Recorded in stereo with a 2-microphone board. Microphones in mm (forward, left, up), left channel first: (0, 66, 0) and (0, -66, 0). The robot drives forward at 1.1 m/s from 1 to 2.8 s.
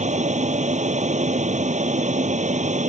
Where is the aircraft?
65° right (ahead or behind).